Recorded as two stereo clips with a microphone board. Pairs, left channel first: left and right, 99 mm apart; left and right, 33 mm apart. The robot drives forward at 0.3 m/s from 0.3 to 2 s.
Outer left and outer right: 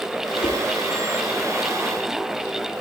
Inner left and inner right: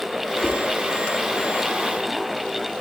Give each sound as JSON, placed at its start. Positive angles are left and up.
{"t": 0.4, "sound": "a whoosh", "side_deg": 45, "distance_m": 1.3}